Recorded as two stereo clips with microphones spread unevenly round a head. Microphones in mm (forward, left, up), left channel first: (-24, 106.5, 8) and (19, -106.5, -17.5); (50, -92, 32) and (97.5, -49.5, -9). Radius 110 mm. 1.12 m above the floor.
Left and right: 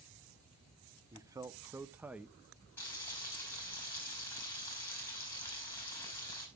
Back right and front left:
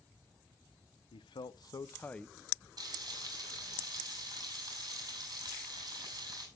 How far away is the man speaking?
About 0.7 m.